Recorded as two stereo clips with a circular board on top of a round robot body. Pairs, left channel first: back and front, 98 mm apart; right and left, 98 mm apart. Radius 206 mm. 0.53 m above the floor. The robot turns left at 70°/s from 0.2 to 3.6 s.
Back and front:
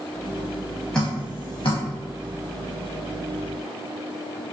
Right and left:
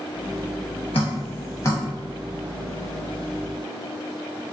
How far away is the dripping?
About 0.9 m.